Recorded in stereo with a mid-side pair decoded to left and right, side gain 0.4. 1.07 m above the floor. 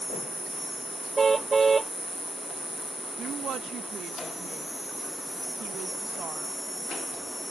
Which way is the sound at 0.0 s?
5° left.